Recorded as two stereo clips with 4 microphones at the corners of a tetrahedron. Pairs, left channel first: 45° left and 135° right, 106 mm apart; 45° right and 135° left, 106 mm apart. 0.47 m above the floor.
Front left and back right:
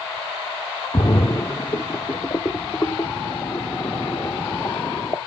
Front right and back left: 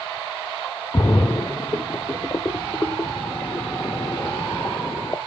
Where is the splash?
Straight ahead, 0.6 m.